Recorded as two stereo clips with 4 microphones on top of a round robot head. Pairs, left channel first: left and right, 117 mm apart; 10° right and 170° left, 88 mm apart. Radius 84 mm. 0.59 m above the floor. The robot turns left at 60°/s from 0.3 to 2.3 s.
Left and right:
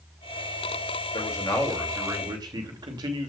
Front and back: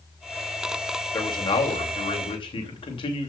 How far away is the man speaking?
About 2.5 m.